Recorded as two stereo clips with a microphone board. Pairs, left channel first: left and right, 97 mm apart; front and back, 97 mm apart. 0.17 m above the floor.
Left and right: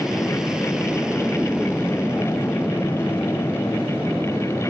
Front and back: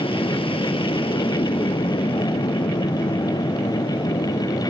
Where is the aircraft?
5° right; by 4.7 s 20° right.